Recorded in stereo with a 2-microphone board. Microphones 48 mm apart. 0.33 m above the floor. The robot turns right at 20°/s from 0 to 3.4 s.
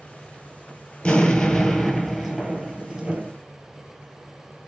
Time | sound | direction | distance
1.0 | an explosion | 160° left | 1.1 m